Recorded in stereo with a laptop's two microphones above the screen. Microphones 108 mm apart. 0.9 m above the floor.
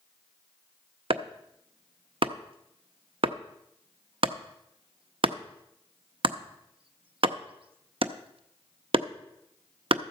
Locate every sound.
1.1 s chopping: 60° right (ahead or behind), 0.6 m